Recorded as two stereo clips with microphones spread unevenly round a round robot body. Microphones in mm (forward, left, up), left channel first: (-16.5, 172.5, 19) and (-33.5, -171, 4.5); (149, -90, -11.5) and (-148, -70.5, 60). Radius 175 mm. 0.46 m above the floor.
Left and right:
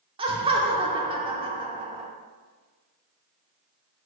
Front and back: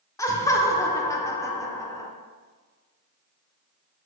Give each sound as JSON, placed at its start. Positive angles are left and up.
{"t": 0.2, "sound": "laughter", "azimuth_deg": -40, "distance_m": 0.7}